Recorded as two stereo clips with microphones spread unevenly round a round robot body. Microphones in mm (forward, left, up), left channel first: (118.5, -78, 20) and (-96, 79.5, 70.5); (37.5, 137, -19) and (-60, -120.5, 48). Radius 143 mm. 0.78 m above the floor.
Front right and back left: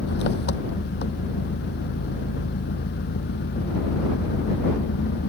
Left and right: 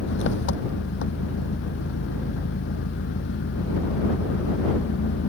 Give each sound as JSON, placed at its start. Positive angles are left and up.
{"t": 0.0, "sound": "an engine running", "azimuth_deg": 15}